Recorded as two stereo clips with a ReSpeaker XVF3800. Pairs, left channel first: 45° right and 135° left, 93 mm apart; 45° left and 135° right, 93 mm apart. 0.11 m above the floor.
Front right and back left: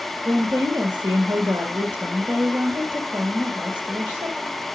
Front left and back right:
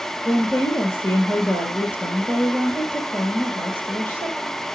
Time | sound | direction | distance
0.2 | a woman speaking | 80° left | 1.6 m